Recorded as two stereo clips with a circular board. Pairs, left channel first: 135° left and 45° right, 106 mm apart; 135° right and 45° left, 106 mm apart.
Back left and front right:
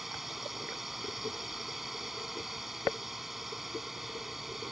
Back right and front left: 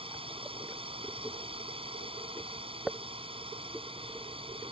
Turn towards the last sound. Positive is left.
turn(degrees=45)